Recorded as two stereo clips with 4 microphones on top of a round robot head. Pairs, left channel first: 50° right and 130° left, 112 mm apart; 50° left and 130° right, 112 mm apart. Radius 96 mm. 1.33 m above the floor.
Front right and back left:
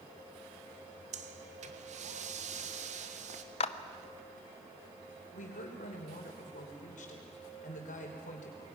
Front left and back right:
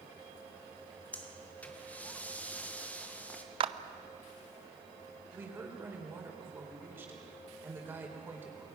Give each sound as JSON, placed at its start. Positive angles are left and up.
{"t": 1.1, "sound": "breathing", "azimuth_deg": 125, "distance_m": 1.5}
{"t": 3.6, "sound": "a clap", "azimuth_deg": -85, "distance_m": 0.8}
{"t": 5.3, "sound": "a woman speaking", "azimuth_deg": -60, "distance_m": 4.0}